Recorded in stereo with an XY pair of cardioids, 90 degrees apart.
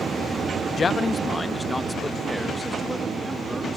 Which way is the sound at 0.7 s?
45° left.